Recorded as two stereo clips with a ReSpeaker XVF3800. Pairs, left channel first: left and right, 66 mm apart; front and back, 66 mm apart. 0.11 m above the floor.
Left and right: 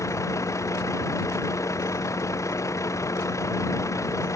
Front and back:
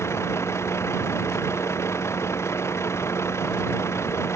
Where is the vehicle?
45° left.